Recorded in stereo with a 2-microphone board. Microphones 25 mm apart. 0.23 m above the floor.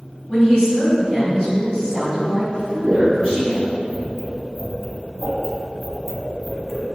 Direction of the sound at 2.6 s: 5° left (ahead or behind).